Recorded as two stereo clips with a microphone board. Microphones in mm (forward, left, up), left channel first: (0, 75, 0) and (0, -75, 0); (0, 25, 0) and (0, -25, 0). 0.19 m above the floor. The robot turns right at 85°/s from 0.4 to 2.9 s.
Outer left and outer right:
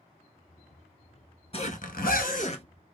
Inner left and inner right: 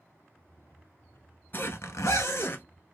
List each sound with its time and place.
1.5 s a zipper: 45° left, 0.7 m; by 2.6 s 140° left, 0.7 m